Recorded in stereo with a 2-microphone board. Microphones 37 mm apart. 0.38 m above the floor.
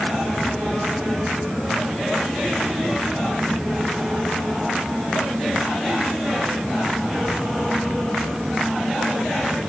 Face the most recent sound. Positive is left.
No sound to turn to.